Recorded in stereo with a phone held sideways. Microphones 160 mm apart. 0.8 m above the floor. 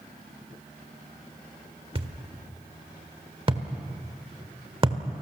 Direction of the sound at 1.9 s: 35° right (ahead or behind).